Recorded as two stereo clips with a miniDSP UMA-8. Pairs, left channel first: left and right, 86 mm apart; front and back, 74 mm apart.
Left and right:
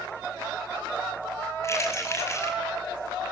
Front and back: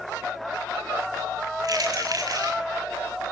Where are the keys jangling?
145° left, 6 m.